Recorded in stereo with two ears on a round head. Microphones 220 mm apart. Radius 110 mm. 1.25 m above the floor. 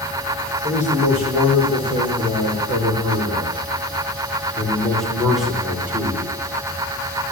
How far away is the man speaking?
About 5 m.